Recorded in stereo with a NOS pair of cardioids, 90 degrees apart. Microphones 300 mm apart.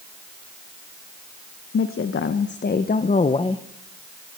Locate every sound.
1.7 s a woman speaking: 45° left, 1.7 m; by 3.6 s 15° left, 1.2 m